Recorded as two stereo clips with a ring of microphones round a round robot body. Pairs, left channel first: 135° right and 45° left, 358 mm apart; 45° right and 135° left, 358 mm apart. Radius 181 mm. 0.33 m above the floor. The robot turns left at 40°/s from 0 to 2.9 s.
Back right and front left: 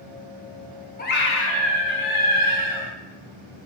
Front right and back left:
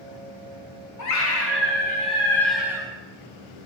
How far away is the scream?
About 2.5 m.